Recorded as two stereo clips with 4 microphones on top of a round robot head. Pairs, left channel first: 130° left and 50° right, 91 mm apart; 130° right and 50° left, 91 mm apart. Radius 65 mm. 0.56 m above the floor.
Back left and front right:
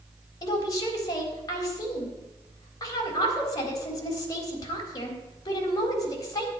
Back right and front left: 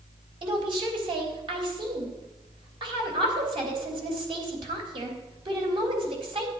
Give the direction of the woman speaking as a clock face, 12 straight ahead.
9 o'clock.